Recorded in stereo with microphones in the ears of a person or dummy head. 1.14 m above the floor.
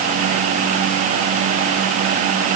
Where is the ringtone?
I don't hear a ringtone.